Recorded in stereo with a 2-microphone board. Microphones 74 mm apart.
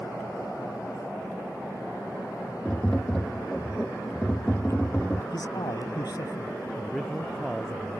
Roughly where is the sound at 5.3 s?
Left.